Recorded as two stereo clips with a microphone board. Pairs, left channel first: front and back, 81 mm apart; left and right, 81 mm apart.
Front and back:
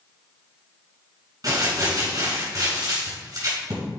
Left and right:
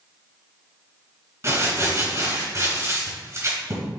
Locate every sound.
1.4 s crumpling: 140° right, 3.5 m